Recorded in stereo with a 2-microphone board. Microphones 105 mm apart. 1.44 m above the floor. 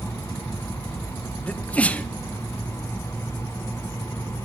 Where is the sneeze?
15° left (ahead or behind), 0.7 m.